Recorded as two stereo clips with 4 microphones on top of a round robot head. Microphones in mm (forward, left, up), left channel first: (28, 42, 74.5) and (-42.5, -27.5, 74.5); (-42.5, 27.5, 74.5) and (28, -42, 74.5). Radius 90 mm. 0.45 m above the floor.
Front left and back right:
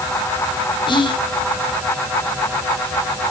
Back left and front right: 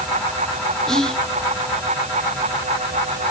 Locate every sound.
0.9 s whispering: 50° left, 1.6 m